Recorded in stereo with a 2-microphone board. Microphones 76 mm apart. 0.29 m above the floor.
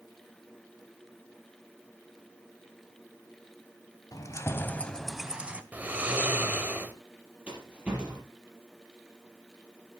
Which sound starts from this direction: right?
Snoring, at 5.7 s.